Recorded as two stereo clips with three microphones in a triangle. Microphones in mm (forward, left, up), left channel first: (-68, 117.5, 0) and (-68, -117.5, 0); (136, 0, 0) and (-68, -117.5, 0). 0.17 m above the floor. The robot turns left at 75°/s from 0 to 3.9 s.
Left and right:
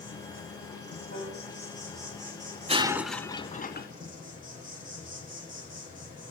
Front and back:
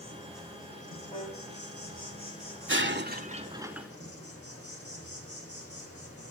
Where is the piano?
100° left, 6.5 m; by 1.4 s 80° left, 6.5 m.